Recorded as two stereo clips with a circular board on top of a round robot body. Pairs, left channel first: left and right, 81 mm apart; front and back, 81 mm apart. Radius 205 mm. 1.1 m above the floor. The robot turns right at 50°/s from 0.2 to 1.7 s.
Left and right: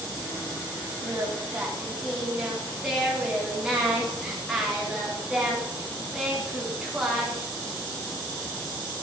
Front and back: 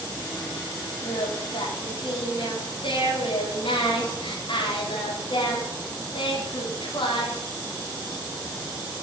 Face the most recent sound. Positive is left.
turn(degrees=-5)